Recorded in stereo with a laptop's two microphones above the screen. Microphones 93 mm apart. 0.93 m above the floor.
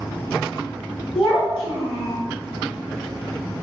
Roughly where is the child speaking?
Left.